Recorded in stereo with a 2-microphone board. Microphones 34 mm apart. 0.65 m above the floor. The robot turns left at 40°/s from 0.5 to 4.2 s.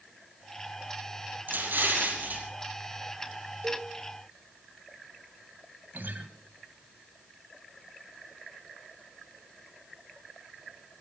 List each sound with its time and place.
1.5 s an explosion: 80° right, 5 m; by 2.5 s 120° right, 5 m
3.6 s a cowbell: 60° right (ahead or behind), 2.0 m; by 3.9 s 70° right (ahead or behind), 2.0 m
5.9 s a guitar: 75° right (ahead or behind), 1.8 m